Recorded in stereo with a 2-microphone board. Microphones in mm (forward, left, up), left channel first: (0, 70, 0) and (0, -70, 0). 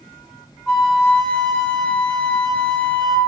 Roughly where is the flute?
Centre.